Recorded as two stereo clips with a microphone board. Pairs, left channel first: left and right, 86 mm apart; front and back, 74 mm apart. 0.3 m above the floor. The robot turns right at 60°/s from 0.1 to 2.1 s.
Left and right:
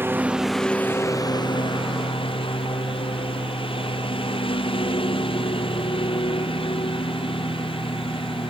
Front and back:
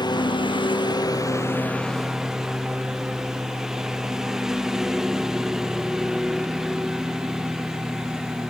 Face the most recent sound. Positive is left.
turn(degrees=95)